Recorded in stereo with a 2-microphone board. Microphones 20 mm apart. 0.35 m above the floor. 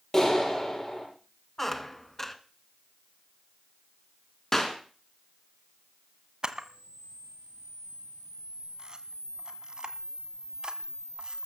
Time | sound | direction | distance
0.1 | a clap | 25° left (ahead or behind) | 8.5 m
1.6 | a squeak | 10° left (ahead or behind) | 1.5 m
4.5 | a clap | 20° left (ahead or behind) | 4 m
6.4 | a camera shutter | 40° right (ahead or behind) | 1.6 m